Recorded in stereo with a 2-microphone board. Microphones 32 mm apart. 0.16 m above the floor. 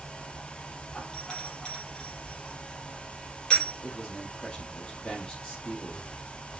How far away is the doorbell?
About 5 m.